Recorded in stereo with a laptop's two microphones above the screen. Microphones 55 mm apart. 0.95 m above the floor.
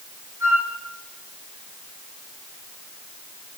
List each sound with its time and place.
0.4 s a flute: 70° right (ahead or behind), 5 m